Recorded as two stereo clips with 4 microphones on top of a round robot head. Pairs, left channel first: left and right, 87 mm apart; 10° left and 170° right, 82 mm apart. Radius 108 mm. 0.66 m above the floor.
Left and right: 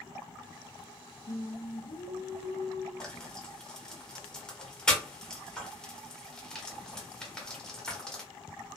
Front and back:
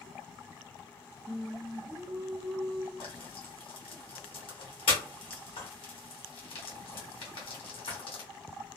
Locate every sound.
1.3 s singing: 100° left, 0.8 m
3.0 s frying: 10° left, 1.1 m